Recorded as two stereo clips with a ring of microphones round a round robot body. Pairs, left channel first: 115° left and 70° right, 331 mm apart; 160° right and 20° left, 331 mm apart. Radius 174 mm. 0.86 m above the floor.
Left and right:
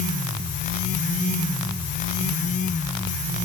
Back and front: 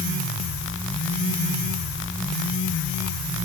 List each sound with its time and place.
Only background noise.